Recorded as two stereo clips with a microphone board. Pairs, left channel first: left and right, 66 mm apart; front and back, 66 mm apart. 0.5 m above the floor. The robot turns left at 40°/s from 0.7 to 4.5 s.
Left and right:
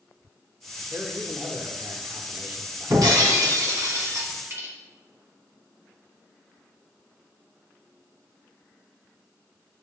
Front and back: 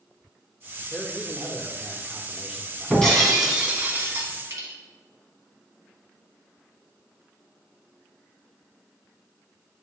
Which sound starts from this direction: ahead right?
A man speaking, at 0.9 s.